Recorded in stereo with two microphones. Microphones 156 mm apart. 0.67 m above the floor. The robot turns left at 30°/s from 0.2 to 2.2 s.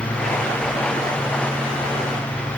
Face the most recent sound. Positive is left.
No sound to turn to.